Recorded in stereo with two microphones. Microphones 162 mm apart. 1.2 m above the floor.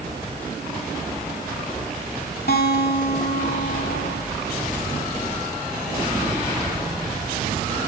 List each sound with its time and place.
2.5 s a guitar: 85° left, 2 m